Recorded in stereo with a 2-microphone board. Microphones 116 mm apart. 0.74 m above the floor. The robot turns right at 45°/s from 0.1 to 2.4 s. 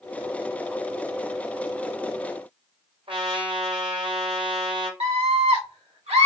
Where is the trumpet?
55° right (ahead or behind), 1.6 m.